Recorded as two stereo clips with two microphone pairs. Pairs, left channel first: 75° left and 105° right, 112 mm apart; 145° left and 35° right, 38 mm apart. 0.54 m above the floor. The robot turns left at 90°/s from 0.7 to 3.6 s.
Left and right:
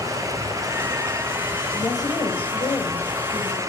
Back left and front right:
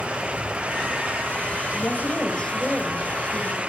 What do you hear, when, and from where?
1.7 s a woman speaking: 140° left, 2 m; by 3.6 s 25° right, 2 m